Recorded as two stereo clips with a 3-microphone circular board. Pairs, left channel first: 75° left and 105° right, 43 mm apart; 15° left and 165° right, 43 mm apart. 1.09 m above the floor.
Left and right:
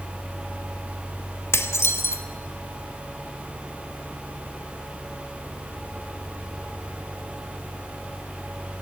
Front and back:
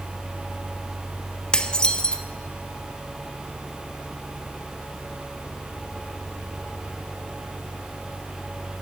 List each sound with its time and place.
1.5 s dishes clattering: 85° left, 1.4 m